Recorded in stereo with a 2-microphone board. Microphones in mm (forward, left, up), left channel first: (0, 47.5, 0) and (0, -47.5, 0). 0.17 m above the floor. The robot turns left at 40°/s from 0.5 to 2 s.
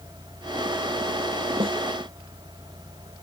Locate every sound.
1.6 s a snare drum: 75° right (ahead or behind)